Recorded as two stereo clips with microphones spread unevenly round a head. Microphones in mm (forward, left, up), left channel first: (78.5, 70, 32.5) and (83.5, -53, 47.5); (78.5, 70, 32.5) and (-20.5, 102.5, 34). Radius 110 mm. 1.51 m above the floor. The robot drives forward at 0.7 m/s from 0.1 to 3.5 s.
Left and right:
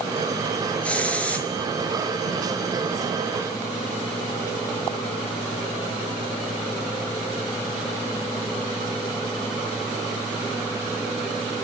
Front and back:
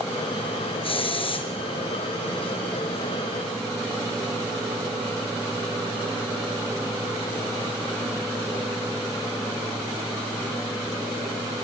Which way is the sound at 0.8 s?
10° left.